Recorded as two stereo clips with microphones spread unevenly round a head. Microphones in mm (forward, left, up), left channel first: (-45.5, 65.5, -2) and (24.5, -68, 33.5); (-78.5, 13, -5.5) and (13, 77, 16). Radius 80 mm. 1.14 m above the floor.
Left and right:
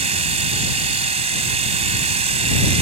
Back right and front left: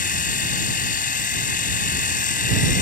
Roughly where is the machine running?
Right.